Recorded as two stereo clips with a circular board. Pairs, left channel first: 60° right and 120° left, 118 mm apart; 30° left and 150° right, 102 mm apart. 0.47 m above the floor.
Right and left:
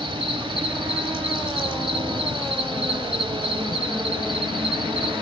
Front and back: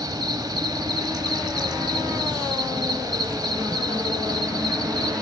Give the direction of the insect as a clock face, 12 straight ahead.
7 o'clock.